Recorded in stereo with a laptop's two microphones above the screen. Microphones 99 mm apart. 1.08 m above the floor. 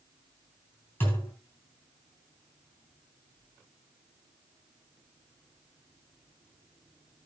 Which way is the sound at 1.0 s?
25° left (ahead or behind).